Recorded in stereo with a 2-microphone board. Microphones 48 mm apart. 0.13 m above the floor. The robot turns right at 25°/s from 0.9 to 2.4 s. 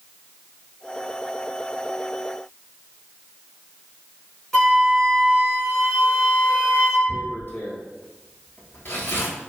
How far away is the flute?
About 1.7 m.